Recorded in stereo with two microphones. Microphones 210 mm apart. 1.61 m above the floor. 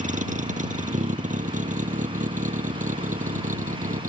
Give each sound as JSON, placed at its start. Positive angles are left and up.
{"t": 0.0, "sound": "a vehicle", "side_deg": -35}